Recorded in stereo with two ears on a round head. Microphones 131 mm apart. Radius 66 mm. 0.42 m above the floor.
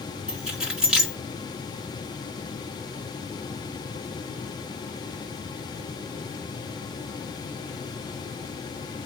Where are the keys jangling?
5° right (ahead or behind), 2.5 m.